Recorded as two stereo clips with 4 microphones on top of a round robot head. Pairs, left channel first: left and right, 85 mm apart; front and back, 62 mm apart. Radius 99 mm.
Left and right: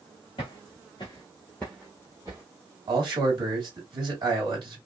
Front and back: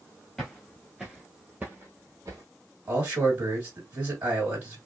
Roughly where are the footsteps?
Left.